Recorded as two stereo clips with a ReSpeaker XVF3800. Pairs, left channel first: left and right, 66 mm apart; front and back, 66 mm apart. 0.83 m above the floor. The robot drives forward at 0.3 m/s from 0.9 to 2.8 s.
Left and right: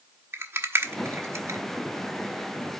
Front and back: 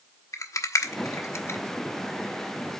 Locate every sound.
0.3 s a rattle: 40° right, 0.8 m; by 1.6 s 50° right, 0.7 m